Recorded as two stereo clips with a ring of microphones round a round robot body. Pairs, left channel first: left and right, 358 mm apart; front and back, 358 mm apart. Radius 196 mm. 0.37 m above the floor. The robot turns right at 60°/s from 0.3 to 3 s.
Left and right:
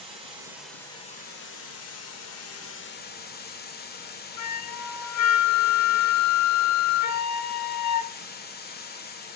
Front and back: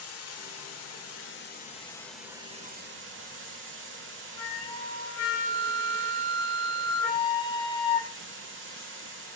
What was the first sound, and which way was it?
Running water, 20° right.